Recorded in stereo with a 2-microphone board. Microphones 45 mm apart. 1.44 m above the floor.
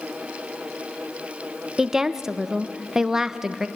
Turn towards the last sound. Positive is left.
turn(degrees=-10)  # may be behind; listen again after turning